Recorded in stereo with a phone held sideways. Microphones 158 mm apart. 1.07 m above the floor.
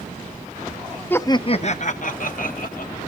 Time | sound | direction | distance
1.1 | laughter | 10° left (ahead or behind) | 0.6 m